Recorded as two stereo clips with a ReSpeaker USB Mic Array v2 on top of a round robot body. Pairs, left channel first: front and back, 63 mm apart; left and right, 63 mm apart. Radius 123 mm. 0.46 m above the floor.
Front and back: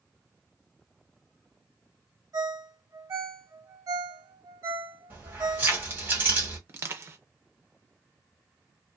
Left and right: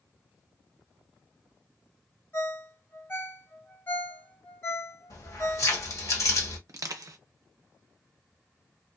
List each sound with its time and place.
2.3 s a ringtone: 150° left, 1.5 m
5.1 s keys jangling: 120° left, 1.5 m
6.7 s crushing: 125° right, 0.6 m